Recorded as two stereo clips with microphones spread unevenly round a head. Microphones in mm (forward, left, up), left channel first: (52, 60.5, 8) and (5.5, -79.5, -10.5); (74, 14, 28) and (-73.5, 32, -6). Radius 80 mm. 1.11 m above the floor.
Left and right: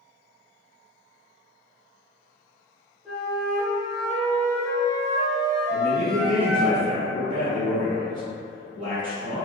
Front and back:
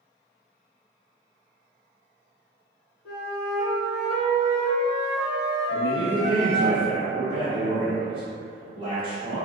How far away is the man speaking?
About 1.4 m.